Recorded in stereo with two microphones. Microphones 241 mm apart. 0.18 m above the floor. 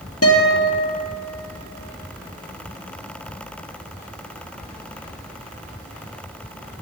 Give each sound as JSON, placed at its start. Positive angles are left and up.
{"t": 0.2, "sound": "a guitar", "side_deg": 80, "distance_m": 2.0}